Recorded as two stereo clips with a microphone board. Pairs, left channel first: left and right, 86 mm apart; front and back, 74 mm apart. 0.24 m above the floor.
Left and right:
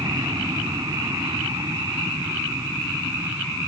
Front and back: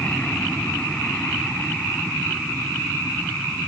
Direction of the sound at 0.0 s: 70° right.